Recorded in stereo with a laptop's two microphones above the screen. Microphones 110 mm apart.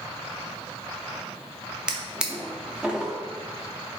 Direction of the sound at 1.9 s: 10° right (ahead or behind).